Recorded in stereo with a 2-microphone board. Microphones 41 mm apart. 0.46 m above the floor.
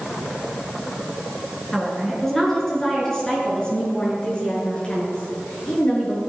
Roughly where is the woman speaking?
Centre.